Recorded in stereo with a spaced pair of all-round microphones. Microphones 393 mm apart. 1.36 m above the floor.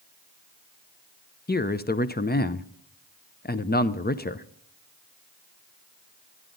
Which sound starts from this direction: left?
A man speaking, at 1.5 s.